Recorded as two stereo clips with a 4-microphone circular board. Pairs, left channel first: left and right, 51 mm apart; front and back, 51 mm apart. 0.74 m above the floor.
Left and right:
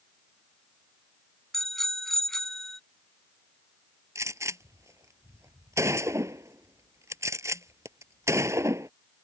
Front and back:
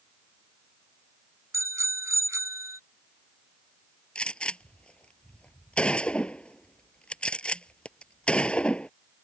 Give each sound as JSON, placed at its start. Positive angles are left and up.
{"t": 1.5, "sound": "a bicycle bell", "azimuth_deg": 175}
{"t": 4.2, "sound": "a gunshot", "azimuth_deg": -70}